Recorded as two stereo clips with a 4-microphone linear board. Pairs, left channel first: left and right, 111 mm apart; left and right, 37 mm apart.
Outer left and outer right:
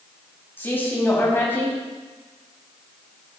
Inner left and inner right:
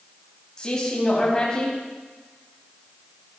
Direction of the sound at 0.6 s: 20° left (ahead or behind).